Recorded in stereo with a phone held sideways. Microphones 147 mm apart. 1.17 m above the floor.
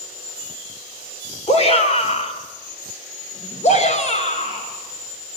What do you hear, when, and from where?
1.5 s a shout: 45° left (ahead or behind), 3.5 m; by 5.4 s 50° left (ahead or behind), 7 m